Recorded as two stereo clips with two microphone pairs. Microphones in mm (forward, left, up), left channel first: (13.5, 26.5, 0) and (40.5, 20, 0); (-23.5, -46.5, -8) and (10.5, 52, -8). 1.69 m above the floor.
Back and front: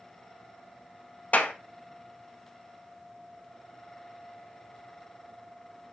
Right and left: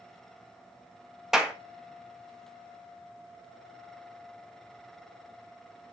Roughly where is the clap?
Behind left.